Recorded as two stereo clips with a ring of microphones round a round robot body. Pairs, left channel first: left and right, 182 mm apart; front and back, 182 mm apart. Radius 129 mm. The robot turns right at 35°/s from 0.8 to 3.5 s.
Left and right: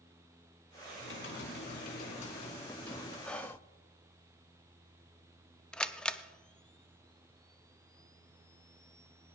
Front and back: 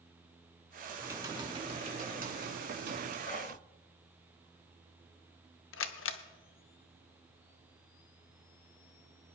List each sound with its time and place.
1.0 s typing on a keyboard: 100° left, 2 m; by 3.1 s 175° left, 2 m
3.2 s whispering: 5° left, 0.7 m; by 3.6 s 15° left, 0.7 m
5.7 s a camera shutter: 5° left, 0.8 m